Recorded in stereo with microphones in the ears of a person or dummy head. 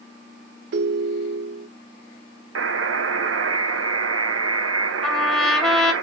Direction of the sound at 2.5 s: 80° right.